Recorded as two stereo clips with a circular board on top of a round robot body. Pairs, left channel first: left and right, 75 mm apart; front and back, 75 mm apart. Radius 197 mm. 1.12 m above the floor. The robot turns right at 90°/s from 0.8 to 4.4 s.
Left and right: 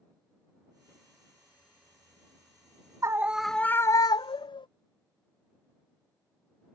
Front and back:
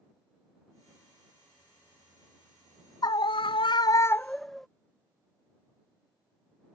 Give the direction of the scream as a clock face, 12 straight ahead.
1 o'clock.